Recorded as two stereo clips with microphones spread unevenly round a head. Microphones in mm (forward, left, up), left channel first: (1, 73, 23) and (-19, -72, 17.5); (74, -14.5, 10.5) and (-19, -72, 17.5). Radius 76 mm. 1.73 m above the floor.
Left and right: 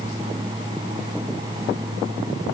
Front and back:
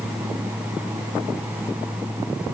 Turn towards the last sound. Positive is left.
No sound to turn to.